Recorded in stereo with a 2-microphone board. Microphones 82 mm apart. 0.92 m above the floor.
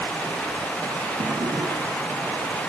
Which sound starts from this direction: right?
A drawer, at 1.2 s.